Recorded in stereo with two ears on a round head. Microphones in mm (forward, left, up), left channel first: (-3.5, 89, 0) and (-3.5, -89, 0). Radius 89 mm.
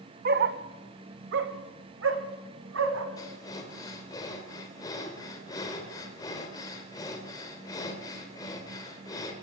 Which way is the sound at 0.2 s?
50° right (ahead or behind).